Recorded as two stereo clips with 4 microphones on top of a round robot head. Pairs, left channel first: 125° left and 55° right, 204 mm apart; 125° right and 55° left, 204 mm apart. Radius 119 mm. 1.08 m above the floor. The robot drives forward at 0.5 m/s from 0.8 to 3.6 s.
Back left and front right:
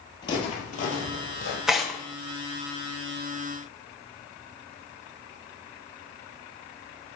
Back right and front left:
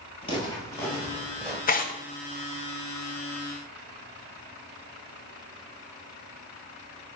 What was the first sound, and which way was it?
Footsteps, 175° right.